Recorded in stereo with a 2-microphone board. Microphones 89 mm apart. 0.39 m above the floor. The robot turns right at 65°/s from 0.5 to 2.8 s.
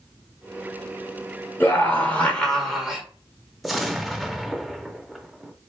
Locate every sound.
1.6 s a scream: 25° left (ahead or behind), 1.1 m; by 3.0 s centre (ahead or behind), 1.1 m
3.6 s an explosion: centre (ahead or behind), 0.5 m